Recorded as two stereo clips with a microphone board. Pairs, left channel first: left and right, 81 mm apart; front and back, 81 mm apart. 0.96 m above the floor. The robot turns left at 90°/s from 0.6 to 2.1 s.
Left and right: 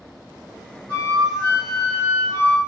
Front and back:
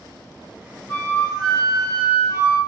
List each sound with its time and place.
0.9 s a flute: 70° left, 1.6 m; by 2.6 s 40° right, 1.6 m